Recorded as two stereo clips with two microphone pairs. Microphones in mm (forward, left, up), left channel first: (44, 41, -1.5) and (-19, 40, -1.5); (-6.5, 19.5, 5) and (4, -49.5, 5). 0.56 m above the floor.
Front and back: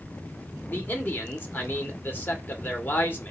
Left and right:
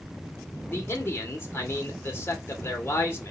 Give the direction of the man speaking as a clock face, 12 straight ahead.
10 o'clock.